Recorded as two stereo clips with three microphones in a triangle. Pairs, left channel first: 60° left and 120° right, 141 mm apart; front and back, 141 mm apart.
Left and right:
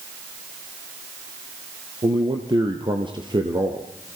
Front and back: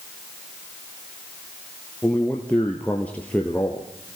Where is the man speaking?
75° right, 2.5 m.